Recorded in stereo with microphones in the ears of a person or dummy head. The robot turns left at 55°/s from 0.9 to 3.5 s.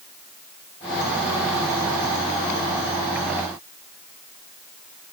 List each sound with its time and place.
Only background noise.